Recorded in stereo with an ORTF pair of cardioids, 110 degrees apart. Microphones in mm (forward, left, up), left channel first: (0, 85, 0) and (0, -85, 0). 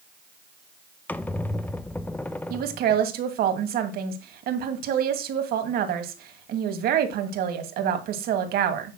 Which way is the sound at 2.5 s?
70° right.